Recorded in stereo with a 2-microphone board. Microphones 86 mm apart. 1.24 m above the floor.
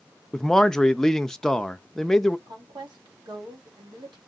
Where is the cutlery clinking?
No cutlery clinking in this recording.